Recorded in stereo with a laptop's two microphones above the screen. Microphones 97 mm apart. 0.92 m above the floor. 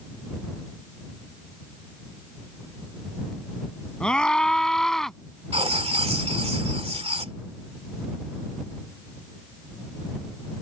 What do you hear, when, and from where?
4.0 s a scream: 5° left (ahead or behind); by 5.2 s centre (ahead or behind)
5.5 s writing: 80° right